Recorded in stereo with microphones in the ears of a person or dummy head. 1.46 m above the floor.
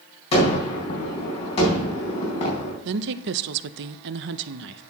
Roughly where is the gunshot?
Left.